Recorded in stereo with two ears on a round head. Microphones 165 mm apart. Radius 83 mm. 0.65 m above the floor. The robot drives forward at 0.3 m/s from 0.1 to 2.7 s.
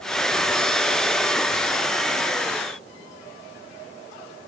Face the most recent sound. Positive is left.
No sound to turn to.